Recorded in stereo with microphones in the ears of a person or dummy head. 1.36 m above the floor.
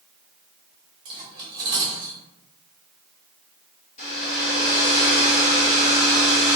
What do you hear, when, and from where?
1.1 s cutlery clinking: 30° right (ahead or behind), 0.9 m
4.0 s a hair dryer: 40° left (ahead or behind), 1.2 m